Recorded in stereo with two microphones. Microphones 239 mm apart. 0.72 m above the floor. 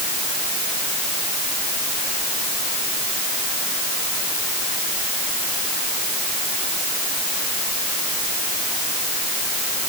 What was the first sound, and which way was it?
Only background noise.